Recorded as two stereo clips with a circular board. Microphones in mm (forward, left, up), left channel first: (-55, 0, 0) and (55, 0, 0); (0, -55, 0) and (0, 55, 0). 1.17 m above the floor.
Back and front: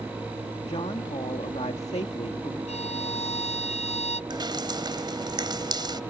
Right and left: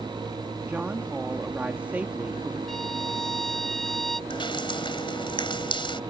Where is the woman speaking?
165° left.